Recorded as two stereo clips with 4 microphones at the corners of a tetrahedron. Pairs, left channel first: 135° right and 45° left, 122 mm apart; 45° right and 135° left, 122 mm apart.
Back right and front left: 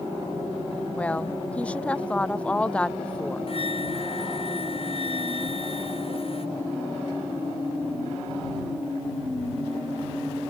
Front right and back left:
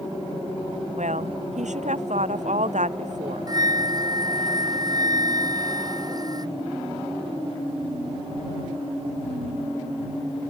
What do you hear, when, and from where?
1.0 s a woman speaking: 145° left
3.5 s a flute: 170° right